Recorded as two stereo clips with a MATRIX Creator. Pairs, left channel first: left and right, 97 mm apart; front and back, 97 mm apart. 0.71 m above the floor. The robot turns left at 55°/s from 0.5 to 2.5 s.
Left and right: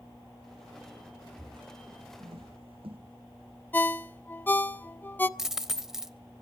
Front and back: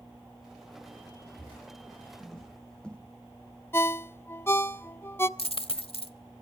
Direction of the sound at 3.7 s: 40° left.